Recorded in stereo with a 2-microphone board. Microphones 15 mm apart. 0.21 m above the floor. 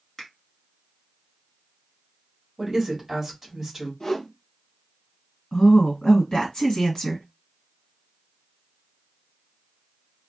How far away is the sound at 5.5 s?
About 1.8 m.